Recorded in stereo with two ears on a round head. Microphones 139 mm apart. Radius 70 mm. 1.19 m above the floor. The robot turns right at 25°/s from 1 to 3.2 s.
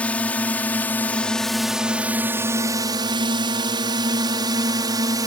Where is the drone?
10° left (ahead or behind); by 5.3 s 25° right (ahead or behind).